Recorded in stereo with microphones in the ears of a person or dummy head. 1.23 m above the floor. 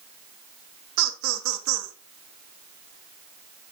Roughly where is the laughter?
Right.